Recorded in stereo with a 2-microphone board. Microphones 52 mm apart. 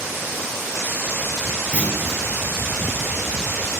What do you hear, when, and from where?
1.7 s a clunk: 20° right (ahead or behind), 0.8 m